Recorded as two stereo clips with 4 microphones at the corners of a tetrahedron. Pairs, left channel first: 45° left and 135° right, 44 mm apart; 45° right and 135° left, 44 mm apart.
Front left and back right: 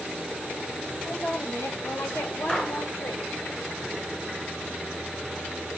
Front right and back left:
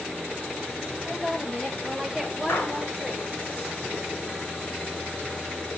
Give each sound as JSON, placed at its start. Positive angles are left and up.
{"t": 1.0, "sound": "a woman speaking", "azimuth_deg": 50, "distance_m": 4.5}
{"t": 2.5, "sound": "a gunshot", "azimuth_deg": -20, "distance_m": 7.5}